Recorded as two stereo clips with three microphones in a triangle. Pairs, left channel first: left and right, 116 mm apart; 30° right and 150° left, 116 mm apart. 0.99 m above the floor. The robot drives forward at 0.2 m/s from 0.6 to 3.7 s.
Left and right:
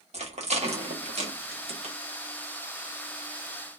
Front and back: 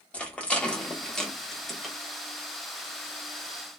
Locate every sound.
0.1 s a rattle: 110° right, 1.3 m; by 1.9 s 120° right, 1.4 m